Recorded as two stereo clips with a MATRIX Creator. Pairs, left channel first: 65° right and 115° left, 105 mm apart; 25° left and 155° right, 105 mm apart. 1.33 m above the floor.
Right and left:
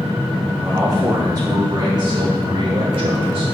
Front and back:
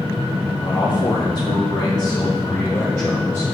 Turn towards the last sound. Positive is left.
turn(degrees=90)